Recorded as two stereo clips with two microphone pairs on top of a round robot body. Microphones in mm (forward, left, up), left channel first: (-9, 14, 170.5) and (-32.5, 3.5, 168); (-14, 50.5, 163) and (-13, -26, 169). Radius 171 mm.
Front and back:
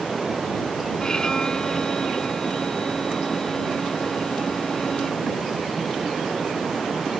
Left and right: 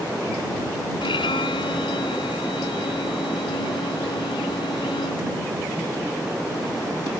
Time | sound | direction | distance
1.0 | a violin | 90° left | ?